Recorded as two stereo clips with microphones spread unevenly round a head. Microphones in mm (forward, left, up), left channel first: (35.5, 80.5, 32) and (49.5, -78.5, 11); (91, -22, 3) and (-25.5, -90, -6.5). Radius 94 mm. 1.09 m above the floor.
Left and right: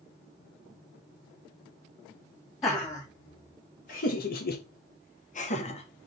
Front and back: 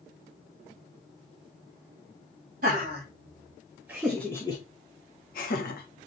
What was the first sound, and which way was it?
Laughter, 170° left.